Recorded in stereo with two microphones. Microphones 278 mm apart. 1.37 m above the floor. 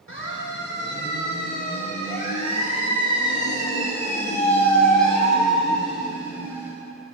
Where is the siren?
45° left (ahead or behind), 6.5 m; by 6.7 s 10° right (ahead or behind), 9.5 m.